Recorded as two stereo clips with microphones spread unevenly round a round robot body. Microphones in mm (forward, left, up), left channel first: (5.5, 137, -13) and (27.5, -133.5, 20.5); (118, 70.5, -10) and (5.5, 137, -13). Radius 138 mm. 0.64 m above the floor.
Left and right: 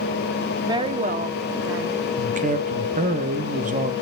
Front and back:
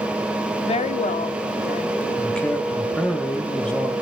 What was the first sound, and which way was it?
A woman speaking, straight ahead.